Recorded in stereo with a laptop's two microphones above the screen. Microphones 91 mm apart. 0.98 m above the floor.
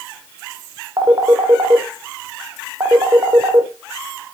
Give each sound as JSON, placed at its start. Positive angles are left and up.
{"t": 1.0, "sound": "a phone ringing", "side_deg": -40, "distance_m": 1.8}